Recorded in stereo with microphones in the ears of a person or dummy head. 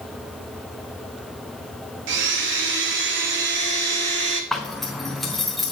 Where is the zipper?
5° left (ahead or behind), 0.5 m.